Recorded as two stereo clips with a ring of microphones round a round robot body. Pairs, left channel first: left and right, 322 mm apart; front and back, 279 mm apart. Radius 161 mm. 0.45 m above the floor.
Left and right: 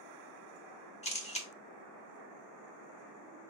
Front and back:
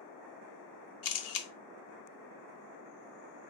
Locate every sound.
1.0 s a camera shutter: 20° left, 0.7 m